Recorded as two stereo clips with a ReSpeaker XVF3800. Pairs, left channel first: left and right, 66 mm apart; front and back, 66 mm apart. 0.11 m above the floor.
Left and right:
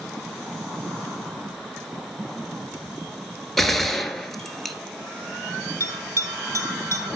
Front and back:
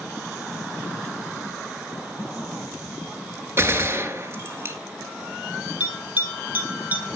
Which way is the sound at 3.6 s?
170° left.